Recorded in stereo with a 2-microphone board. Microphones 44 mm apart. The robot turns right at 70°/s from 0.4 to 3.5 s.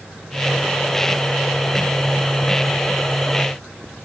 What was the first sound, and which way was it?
Only background noise.